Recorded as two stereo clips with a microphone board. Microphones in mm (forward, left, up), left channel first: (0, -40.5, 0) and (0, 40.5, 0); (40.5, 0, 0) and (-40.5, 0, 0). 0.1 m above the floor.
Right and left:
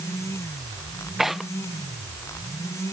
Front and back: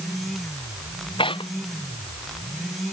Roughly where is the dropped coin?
No dropped coin in this recording.